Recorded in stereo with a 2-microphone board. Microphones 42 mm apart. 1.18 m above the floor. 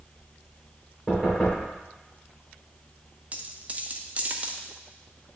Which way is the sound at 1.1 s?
20° left (ahead or behind).